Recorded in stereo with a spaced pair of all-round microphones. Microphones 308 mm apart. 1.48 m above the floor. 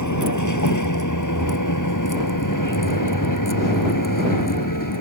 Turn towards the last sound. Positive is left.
turn(degrees=85)